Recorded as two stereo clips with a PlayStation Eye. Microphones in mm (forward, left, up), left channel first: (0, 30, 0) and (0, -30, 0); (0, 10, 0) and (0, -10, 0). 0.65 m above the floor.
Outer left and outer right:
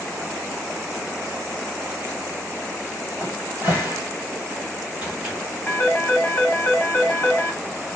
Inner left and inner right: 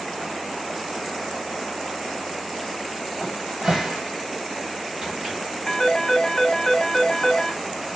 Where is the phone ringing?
25° left (ahead or behind), 0.8 m.